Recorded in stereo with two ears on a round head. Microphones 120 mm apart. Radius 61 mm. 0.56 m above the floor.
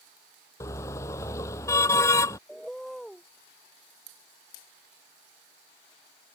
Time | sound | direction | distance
0.6 | a car horn | 20° left (ahead or behind) | ?
2.5 | a bird | centre (ahead or behind) | ?